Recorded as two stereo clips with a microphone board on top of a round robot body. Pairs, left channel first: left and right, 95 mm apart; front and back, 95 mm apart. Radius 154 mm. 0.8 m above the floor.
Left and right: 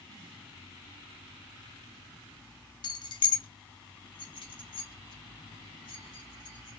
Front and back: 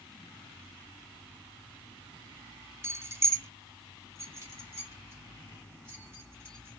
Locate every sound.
2.8 s keys jangling: 120° left, 0.6 m